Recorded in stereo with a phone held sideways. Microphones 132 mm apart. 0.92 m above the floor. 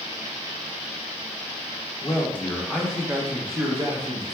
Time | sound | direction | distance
2.0 | a man speaking | 25° left (ahead or behind) | 0.9 m